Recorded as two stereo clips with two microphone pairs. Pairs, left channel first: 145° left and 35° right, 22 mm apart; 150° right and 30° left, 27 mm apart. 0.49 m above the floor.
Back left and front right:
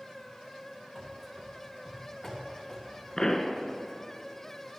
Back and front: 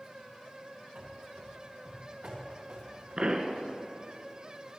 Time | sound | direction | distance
0.9 | running footsteps | 45° left | 3 m
3.2 | a pop | 80° left | 1.0 m